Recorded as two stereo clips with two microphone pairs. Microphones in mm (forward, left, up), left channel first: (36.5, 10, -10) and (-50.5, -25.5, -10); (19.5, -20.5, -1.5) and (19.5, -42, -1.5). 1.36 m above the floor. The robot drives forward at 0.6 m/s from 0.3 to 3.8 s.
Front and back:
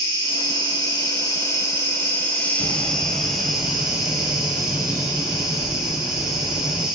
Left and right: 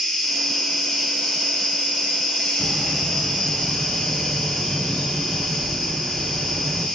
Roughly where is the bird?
Ahead left.